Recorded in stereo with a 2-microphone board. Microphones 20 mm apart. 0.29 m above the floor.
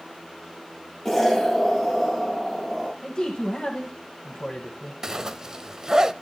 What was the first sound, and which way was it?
An explosion, 10° left (ahead or behind).